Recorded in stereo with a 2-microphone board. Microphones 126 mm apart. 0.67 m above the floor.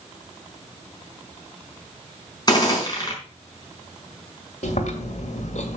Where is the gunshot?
30° left (ahead or behind), 4.5 m.